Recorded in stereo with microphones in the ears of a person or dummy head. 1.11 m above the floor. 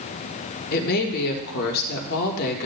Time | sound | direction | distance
0.7 | a woman speaking | 55° left (ahead or behind) | 1.5 m